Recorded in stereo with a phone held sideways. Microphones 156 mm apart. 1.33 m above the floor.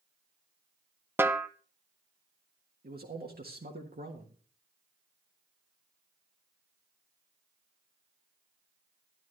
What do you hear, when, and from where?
1.2 s a snare drum: 15° right (ahead or behind), 0.8 m
2.8 s a man speaking: 75° right (ahead or behind), 1.5 m